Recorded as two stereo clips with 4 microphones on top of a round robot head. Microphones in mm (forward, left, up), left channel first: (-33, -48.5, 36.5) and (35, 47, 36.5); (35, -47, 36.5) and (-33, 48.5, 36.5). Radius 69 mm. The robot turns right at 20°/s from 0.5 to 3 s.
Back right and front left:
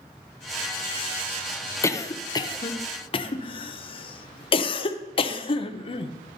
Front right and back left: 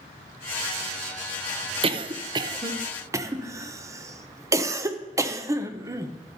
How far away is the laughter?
I don't hear laughter.